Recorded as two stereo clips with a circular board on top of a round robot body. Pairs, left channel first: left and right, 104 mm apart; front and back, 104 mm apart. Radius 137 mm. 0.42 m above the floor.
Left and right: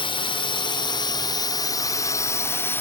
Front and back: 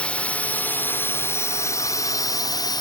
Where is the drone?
75° left; by 2.8 s 25° left.